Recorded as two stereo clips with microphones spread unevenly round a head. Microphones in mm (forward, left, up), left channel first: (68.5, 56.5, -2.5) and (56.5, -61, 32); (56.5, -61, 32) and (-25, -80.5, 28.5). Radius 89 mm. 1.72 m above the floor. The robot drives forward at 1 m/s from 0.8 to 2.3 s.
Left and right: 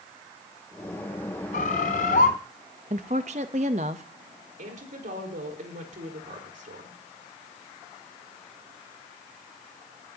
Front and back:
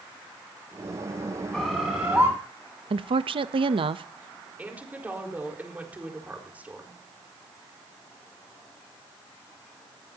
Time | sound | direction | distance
1.5 | a bird | 95° left | 2 m
2.9 | a woman speaking | 150° right | 0.7 m
4.6 | a woman speaking | 95° right | 4.5 m